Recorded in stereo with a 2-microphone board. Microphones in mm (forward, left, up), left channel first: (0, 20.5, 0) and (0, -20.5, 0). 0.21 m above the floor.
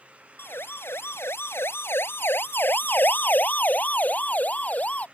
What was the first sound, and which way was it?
A siren, 60° left (ahead or behind).